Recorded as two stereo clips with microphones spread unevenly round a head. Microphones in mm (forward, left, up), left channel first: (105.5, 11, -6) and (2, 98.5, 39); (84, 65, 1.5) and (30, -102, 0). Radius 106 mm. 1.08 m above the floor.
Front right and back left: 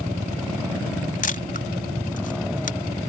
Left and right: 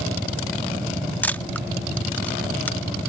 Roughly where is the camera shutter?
Ahead.